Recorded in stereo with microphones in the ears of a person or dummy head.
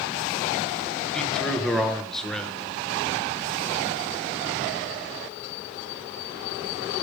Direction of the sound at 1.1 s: Centre (ahead or behind).